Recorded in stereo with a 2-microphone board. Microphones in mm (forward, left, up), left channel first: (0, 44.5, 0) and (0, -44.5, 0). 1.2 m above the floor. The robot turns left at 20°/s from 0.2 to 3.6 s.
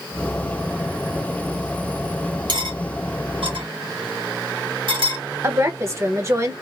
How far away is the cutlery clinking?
About 1.3 m.